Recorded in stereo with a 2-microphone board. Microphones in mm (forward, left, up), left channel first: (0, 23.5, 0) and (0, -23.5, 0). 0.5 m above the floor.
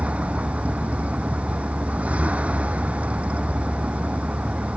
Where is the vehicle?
30° right (ahead or behind).